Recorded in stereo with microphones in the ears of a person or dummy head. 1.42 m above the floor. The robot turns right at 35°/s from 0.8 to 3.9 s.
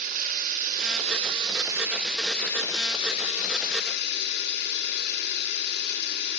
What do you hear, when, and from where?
0.0 s running water: 50° right, 2.5 m; by 6.4 s 55° left, 2.5 m